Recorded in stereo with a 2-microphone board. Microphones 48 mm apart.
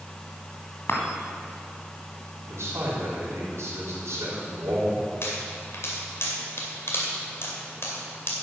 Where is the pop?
60° left (ahead or behind), 2.5 m.